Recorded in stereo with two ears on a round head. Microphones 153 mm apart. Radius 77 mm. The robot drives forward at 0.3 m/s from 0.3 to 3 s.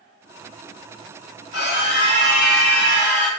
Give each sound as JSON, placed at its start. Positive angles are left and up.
{"t": 1.5, "sound": "a scream", "side_deg": 60, "distance_m": 1.7}